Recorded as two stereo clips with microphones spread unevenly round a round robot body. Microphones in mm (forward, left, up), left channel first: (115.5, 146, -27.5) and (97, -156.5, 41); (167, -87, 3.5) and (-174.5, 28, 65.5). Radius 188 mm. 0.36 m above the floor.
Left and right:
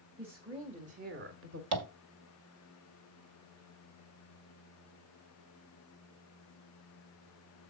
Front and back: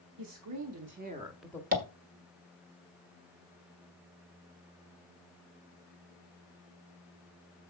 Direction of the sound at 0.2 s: 175° left.